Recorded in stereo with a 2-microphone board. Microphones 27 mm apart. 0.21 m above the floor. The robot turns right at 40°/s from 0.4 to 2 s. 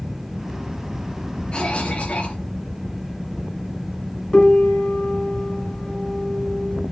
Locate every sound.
1.5 s a cough: 40° left (ahead or behind), 4.5 m; by 2.4 s 55° left (ahead or behind), 4.5 m
4.3 s a piano: 35° left (ahead or behind), 1.7 m